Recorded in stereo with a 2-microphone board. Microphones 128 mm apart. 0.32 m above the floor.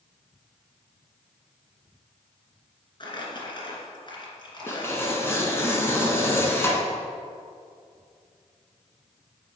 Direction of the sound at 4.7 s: 20° left (ahead or behind).